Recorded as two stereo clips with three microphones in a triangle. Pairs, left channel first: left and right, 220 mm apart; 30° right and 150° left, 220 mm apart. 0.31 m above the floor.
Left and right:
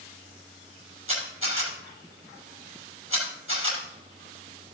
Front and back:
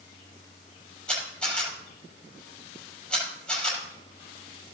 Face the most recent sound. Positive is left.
turn(degrees=-115)